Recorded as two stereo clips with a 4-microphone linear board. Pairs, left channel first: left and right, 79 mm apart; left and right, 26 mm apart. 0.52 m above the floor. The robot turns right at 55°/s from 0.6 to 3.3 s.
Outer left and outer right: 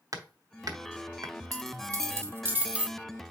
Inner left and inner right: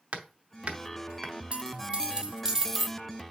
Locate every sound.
0.1 s hammering: 50° right (ahead or behind), 0.8 m; by 1.3 s 45° right (ahead or behind), 0.8 m
1.5 s a dropped coin: 90° right, 0.6 m; by 3.0 s 10° right, 0.6 m